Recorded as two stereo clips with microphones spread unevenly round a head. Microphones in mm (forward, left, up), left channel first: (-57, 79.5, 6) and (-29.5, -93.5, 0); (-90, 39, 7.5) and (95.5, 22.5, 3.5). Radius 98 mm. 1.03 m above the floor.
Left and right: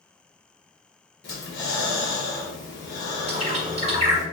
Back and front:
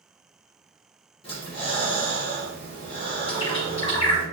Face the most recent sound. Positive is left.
turn(degrees=-125)